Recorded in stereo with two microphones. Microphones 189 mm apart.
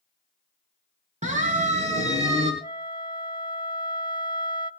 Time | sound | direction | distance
1.2 | a siren | 40° right (ahead or behind) | 5 m
2.6 | a flute | 25° left (ahead or behind) | 1.0 m